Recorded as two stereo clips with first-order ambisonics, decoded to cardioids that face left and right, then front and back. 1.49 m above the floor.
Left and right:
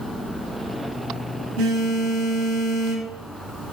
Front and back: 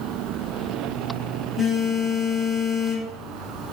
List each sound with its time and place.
1.6 s a phone buzzing: 100° right, 0.7 m